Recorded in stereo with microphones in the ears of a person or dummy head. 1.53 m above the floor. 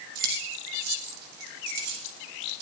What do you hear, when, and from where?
0.1 s keys jangling: 55° right (ahead or behind), 5.5 m; by 2.6 s 60° right (ahead or behind), 6.5 m